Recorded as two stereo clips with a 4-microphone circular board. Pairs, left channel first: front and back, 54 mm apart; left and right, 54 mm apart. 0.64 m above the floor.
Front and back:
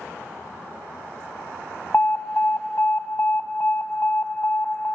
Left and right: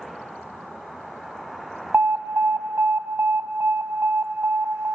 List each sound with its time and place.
1.9 s an alarm: 45° right, 1.1 m